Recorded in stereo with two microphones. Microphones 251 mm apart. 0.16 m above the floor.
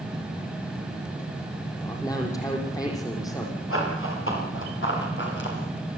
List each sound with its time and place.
1.8 s a man speaking: 15° left (ahead or behind), 6 m
3.7 s running footsteps: 55° left (ahead or behind), 10 m; by 5.6 s 45° left (ahead or behind), 9 m